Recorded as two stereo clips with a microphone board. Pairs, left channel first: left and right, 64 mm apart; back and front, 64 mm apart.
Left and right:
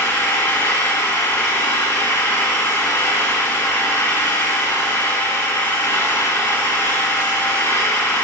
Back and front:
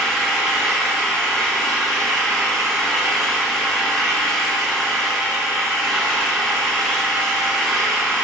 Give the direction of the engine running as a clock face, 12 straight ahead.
9 o'clock.